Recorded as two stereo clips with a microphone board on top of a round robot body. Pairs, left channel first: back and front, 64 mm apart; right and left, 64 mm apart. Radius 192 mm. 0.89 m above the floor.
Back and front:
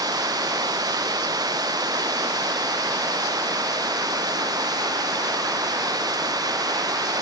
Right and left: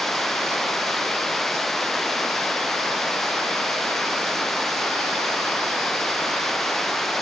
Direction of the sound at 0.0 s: 5° right.